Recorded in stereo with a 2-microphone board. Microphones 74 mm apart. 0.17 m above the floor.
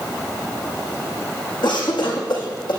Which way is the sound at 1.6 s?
75° left (ahead or behind).